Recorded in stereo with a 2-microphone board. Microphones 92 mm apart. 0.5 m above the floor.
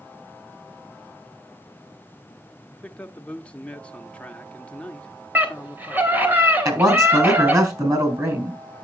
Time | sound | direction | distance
2.7 | a man speaking | 15° left (ahead or behind) | 0.8 m
5.3 | a scream | 20° right (ahead or behind) | 3 m
6.7 | a man speaking | 35° right (ahead or behind) | 4 m